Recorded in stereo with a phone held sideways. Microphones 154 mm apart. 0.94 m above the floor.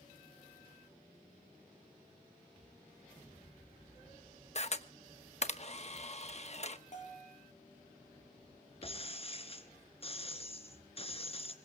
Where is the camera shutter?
45° left (ahead or behind), 1.1 m.